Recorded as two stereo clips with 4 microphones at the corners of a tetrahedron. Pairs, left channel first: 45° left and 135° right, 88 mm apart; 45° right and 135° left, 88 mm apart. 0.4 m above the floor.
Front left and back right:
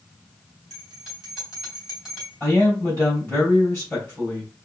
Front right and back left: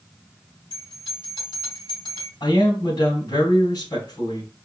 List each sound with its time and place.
0.7 s a bell: 50° right, 3 m
2.4 s a man speaking: 30° right, 3 m